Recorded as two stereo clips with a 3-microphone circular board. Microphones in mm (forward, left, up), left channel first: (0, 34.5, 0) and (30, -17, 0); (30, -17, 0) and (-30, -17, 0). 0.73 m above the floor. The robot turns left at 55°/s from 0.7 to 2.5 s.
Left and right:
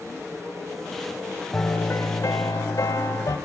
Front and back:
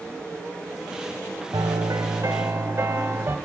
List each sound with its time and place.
1.5 s a piano: straight behind, 2.5 m; by 3.4 s 125° left, 2.5 m